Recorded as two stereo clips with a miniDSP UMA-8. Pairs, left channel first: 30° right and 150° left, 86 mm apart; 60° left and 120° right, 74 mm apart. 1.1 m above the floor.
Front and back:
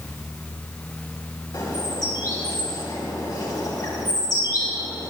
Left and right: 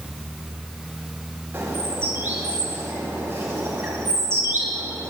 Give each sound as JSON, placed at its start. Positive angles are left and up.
{"t": 1.5, "sound": "a bird", "azimuth_deg": -60, "distance_m": 4.5}